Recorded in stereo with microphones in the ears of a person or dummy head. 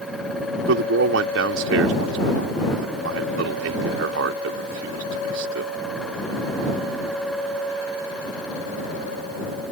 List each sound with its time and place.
0.7 s a man speaking: 85° right